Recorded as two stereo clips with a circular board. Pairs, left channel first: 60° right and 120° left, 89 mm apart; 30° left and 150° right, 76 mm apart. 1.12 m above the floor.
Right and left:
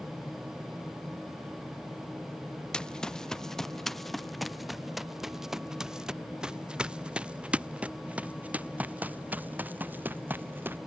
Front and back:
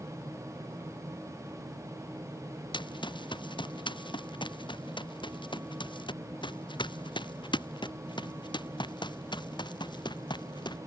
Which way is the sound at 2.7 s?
20° left.